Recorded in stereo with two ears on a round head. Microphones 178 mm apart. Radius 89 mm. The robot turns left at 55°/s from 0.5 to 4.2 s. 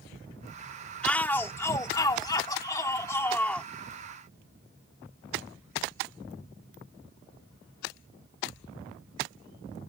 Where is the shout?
5° left (ahead or behind).